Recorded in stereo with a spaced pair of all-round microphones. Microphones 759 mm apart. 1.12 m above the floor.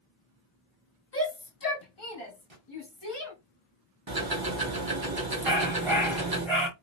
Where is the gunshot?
50° right (ahead or behind), 1.4 m.